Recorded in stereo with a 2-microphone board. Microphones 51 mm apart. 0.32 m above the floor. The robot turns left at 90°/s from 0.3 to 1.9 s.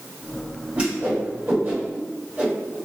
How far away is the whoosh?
About 1.5 m.